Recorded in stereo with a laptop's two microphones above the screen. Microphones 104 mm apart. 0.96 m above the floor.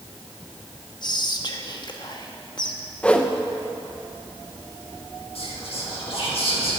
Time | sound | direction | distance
1.0 | whispering | 45° left (ahead or behind) | 1.2 m
3.0 | a whoosh | 10° left (ahead or behind) | 0.5 m
5.3 | whispering | 65° left (ahead or behind) | 1.7 m